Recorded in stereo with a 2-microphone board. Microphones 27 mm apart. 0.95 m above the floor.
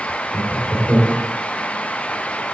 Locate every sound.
0.3 s laughter: 25° left (ahead or behind), 2.5 m